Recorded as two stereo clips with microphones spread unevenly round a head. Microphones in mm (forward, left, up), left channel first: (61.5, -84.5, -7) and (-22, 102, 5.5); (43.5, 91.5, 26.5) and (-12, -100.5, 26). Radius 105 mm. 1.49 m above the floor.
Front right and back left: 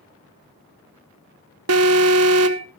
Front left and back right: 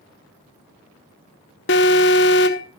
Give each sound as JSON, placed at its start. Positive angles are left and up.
{"t": 1.7, "sound": "an alarm", "azimuth_deg": 110, "distance_m": 1.1}